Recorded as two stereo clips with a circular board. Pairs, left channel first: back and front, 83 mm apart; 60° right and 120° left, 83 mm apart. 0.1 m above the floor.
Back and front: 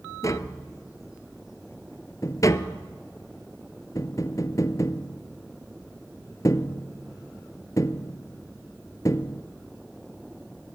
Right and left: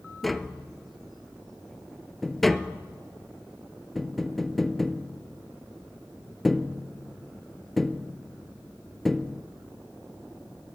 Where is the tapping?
150° right, 0.9 m.